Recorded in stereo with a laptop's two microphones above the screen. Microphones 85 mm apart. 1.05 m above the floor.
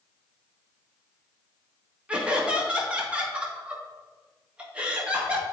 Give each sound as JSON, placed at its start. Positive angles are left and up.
{"t": 2.1, "sound": "laughter", "side_deg": -15, "distance_m": 1.7}